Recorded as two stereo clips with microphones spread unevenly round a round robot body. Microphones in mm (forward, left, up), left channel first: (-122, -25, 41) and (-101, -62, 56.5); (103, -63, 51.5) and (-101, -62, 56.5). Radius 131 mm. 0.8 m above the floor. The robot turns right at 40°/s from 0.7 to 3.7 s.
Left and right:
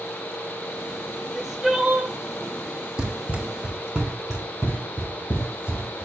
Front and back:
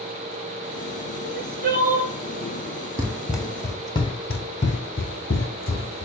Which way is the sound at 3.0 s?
115° right.